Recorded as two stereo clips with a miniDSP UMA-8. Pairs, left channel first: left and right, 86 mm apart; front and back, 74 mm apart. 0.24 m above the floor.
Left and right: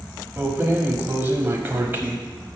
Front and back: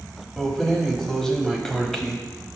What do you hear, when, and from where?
0.4 s keys jangling: 80° right, 0.8 m